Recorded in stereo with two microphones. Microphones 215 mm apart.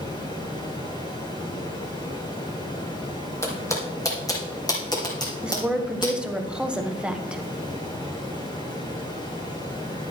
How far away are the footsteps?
About 2.5 m.